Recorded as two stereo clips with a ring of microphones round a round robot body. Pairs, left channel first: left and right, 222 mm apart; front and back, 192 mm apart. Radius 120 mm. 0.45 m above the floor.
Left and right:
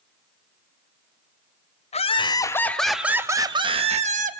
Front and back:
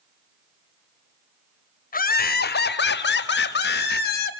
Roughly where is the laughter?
Ahead left.